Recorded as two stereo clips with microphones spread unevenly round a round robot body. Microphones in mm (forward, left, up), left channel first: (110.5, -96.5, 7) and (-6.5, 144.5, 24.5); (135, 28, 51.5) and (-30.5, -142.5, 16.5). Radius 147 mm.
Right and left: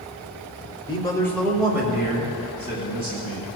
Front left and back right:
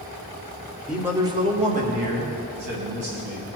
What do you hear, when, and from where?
0.9 s a man speaking: 70° right, 1.1 m; by 3.5 s 170° right, 3 m